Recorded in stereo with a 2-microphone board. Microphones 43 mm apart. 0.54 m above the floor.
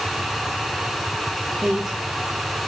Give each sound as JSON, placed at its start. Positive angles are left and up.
{"t": 1.6, "sound": "a woman speaking", "side_deg": -30, "distance_m": 0.6}